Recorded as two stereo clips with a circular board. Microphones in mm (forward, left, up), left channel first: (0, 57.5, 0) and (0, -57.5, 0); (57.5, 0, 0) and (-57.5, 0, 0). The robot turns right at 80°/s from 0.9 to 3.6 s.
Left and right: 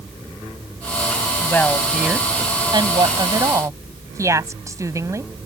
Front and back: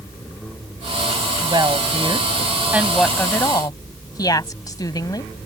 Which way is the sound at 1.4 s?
145° left.